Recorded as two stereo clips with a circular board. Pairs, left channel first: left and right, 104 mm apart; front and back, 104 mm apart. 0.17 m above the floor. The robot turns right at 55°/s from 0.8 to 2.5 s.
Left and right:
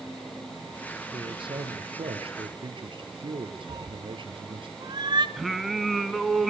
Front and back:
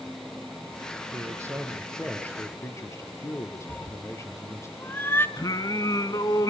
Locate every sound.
1.1 s a man speaking: 135° right, 3 m; by 4.7 s 60° right, 3 m
3.7 s a cat meowing: 65° right, 1.0 m
5.4 s singing: straight ahead, 1.4 m